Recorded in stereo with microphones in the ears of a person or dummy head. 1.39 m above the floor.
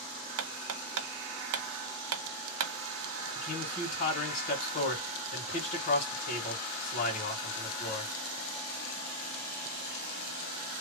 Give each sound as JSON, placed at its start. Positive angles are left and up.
{"t": 0.4, "sound": "hammering", "side_deg": -70, "distance_m": 1.0}
{"t": 3.4, "sound": "a man speaking", "side_deg": 40, "distance_m": 2.0}